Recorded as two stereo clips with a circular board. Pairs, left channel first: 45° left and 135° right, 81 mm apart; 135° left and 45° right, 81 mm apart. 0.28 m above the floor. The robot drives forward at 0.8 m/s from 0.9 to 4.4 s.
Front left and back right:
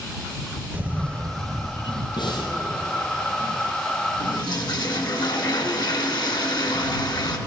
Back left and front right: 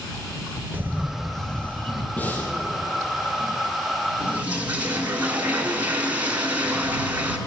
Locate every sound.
0.7 s a camera shutter: 85° right, 0.5 m; by 2.1 s 165° right, 1.1 m
2.2 s breathing: 65° left, 2.5 m; by 2.5 s 70° left, 2.5 m
4.2 s a toilet flushing: 20° left, 1.6 m; by 7.4 s 25° left, 1.4 m